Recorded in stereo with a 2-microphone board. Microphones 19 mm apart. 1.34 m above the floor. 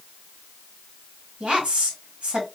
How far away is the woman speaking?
About 1.5 m.